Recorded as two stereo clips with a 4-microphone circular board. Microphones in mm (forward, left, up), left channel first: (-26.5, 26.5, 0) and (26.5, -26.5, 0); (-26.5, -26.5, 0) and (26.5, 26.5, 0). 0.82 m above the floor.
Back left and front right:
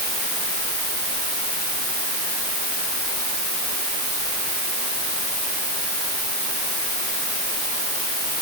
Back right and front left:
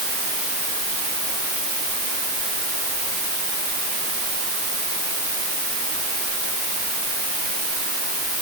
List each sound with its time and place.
Only background noise.